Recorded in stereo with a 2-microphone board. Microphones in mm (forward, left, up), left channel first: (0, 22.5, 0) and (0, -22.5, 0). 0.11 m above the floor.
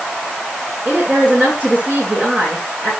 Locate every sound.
0.8 s a woman speaking: 30° right (ahead or behind), 8 m